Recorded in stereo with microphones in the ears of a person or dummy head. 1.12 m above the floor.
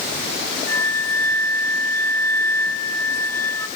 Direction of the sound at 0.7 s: 15° left (ahead or behind).